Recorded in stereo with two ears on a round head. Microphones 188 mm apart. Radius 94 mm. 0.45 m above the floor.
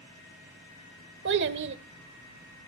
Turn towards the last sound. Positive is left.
turn(degrees=-55)  # may be behind; listen again after turning